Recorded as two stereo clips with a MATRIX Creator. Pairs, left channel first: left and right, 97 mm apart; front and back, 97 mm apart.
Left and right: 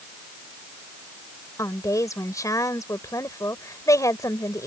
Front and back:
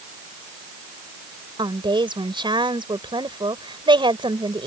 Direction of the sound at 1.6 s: 145° left.